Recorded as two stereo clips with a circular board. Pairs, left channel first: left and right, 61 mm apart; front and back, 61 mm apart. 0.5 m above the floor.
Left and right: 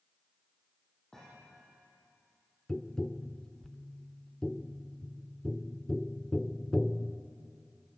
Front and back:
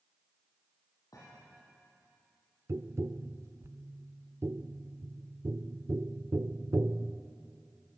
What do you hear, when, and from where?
1.1 s a thud: 10° left, 10 m
2.7 s tapping: 165° left, 0.7 m